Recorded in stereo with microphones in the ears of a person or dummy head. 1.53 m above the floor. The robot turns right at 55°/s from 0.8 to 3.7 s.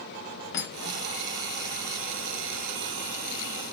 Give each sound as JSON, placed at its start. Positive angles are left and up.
{"t": 0.5, "sound": "cutlery clinking", "side_deg": 60, "distance_m": 2.0}